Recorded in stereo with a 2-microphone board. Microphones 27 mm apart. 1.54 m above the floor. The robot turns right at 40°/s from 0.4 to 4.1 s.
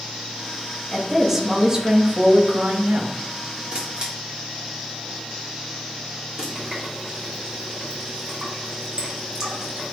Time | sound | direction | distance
0.9 | a woman speaking | 175° left | 2 m
3.7 | a camera shutter | 45° right (ahead or behind) | 3.5 m
6.5 | a running tap | 20° right (ahead or behind) | 4 m